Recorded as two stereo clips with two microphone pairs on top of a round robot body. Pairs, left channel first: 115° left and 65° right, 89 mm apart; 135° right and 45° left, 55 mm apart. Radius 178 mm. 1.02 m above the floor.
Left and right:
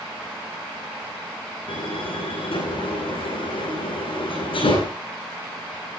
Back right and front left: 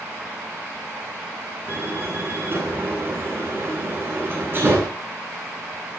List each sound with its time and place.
1.7 s a door slam: 95° left, 10 m